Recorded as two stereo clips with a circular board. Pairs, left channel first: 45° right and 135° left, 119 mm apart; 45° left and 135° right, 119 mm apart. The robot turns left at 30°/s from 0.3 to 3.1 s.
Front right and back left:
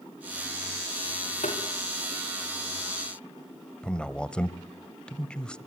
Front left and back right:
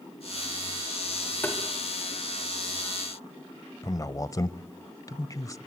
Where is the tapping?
30° right, 5 m; by 1.6 s 35° right, 5 m.